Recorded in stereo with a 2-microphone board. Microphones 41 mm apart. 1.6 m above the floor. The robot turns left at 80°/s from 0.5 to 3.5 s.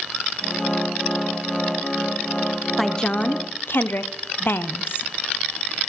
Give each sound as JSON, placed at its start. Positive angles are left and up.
{"t": 2.8, "sound": "a woman speaking", "azimuth_deg": 180, "distance_m": 0.5}